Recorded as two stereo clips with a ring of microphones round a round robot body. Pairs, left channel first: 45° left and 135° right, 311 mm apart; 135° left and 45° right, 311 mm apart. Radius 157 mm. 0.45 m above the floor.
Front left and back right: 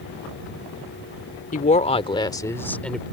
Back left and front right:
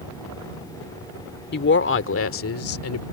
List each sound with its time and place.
1.5 s a woman speaking: 95° left; by 3.0 s 135° left